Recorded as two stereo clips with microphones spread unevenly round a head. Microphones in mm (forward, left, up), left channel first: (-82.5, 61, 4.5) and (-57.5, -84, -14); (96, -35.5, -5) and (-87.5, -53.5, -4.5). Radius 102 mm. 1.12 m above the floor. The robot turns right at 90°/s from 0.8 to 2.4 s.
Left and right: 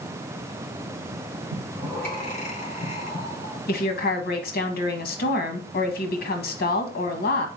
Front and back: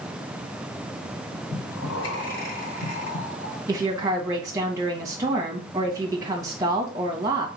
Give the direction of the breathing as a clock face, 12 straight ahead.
1 o'clock.